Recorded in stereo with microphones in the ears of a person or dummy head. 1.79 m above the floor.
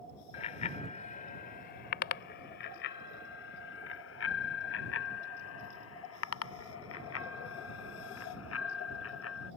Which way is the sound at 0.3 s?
35° left (ahead or behind).